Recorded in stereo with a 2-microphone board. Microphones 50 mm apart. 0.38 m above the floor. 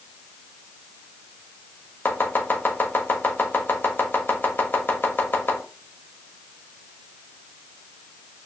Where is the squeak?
I don't hear a squeak.